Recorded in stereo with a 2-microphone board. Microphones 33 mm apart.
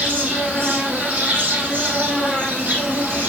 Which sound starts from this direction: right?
An insect, at 0.0 s.